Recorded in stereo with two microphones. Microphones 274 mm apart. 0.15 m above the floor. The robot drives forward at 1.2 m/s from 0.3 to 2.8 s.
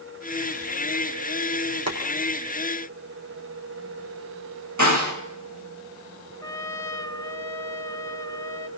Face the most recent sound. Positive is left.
turn(degrees=10)  # may be behind; listen again after turning